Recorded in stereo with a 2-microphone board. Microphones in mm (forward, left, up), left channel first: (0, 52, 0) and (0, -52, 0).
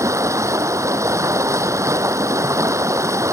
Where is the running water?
30° right (ahead or behind).